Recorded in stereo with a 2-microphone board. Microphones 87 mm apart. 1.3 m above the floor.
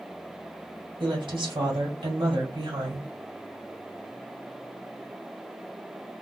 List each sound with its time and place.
1.0 s a woman speaking: 75° right (ahead or behind), 2.5 m